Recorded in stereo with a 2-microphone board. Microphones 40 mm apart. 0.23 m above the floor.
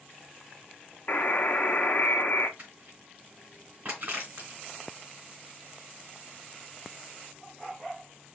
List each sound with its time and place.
1.1 s a buzzer: 45° left (ahead or behind), 0.9 m
2.6 s crushing: 40° right (ahead or behind), 3 m